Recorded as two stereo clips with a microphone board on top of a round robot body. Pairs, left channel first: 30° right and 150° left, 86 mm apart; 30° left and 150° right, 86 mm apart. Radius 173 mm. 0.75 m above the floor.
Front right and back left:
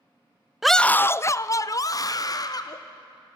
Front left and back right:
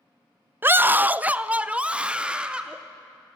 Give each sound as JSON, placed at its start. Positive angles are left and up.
{"t": 0.6, "sound": "a scream", "azimuth_deg": -130, "distance_m": 0.5}